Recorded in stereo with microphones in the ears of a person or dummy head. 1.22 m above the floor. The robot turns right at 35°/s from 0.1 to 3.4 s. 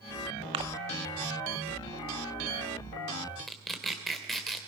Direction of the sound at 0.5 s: 30° right (ahead or behind).